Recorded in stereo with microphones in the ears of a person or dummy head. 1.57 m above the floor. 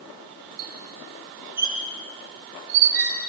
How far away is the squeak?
About 2.5 m.